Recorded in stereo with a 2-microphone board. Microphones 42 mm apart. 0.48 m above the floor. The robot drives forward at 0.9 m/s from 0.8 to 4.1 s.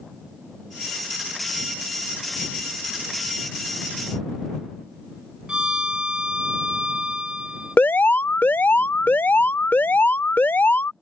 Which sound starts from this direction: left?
An alarm, at 7.8 s.